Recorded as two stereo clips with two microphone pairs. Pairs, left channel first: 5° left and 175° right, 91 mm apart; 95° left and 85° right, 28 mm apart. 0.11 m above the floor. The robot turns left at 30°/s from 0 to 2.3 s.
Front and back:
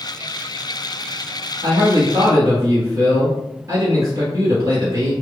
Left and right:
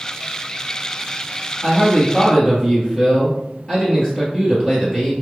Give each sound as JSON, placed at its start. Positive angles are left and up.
{"t": 1.6, "sound": "a man speaking", "azimuth_deg": 165, "distance_m": 2.0}